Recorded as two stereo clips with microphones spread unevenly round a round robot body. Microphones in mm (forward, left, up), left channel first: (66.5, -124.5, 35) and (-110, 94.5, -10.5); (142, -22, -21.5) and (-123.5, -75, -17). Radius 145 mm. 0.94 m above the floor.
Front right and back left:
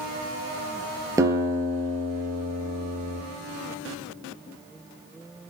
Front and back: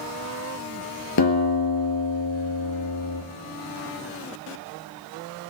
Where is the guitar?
45° left, 3 m.